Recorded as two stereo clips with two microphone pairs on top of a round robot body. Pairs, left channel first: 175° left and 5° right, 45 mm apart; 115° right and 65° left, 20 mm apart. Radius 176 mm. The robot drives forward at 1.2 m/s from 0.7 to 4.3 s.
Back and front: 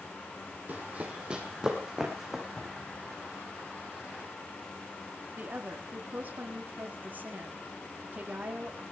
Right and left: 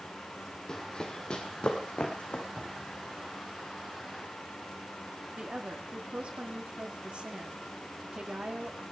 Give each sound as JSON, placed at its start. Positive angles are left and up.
{"t": 0.7, "sound": "running footsteps", "azimuth_deg": -60, "distance_m": 1.6}
{"t": 2.6, "sound": "a cupboard door", "azimuth_deg": 105, "distance_m": 2.5}
{"t": 5.4, "sound": "a woman speaking", "azimuth_deg": 45, "distance_m": 2.5}